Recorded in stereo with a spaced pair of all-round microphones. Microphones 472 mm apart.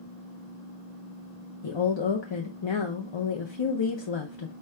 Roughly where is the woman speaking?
Left.